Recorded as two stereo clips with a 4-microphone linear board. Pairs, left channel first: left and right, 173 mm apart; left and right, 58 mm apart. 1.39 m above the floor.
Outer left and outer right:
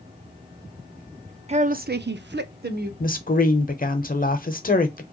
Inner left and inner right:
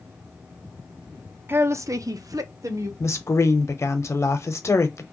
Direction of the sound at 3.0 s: 55° left (ahead or behind).